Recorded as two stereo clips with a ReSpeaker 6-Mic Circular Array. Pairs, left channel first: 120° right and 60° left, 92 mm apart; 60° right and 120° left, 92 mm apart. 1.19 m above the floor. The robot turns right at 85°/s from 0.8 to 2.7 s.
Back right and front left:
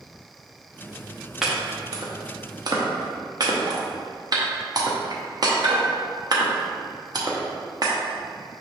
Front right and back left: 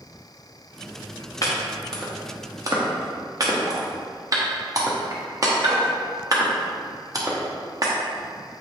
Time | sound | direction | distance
1.4 | chopping | 25° right | 0.7 m